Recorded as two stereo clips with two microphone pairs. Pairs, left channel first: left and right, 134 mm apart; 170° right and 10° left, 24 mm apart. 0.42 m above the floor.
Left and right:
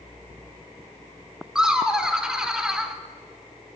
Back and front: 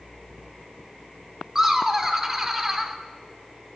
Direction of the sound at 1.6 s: 15° right.